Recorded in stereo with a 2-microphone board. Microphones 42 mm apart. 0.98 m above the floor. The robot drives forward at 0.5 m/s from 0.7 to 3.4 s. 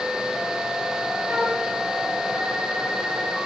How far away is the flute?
About 5 m.